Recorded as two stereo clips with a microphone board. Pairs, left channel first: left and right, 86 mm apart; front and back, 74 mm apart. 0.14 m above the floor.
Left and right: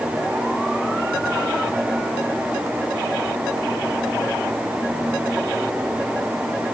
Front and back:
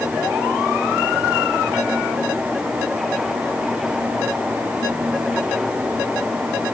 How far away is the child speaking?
No child speaking in this recording.